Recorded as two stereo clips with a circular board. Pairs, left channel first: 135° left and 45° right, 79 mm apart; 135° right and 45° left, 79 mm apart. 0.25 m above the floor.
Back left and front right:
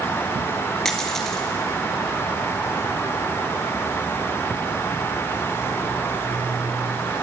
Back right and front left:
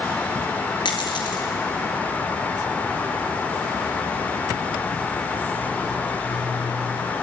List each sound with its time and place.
0.8 s a dropped coin: 140° right, 1.9 m